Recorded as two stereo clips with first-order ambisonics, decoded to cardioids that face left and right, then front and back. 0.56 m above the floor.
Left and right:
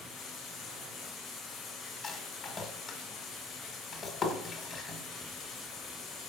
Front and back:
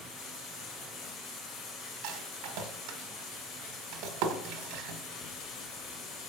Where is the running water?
30° left, 2.5 m.